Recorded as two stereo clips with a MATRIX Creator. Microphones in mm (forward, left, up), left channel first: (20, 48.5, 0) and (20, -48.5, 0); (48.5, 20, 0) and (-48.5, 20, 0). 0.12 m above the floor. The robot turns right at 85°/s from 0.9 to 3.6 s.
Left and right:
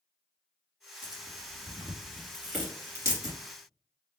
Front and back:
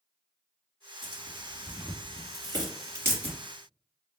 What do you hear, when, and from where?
1.0 s tearing paper: 50° left, 2 m; by 3.4 s 110° right, 2 m